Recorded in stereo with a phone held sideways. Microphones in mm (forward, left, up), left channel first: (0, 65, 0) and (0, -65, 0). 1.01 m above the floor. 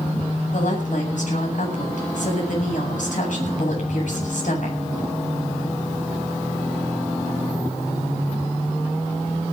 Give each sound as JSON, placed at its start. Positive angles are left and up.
{"t": 0.5, "sound": "a woman speaking", "side_deg": 70, "distance_m": 8.0}